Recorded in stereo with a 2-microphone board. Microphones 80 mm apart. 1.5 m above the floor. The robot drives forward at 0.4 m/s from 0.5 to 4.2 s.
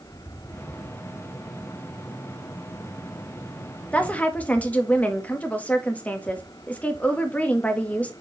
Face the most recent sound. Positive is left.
turn(degrees=20)  # may be behind; listen again after turning